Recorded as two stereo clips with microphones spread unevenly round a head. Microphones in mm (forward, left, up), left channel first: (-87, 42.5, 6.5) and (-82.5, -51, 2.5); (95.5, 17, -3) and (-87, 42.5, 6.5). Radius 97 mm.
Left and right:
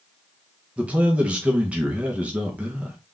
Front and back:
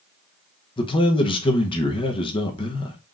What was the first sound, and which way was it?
A man speaking, 25° right.